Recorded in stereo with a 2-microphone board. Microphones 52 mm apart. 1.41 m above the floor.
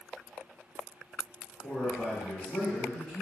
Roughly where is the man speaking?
Left.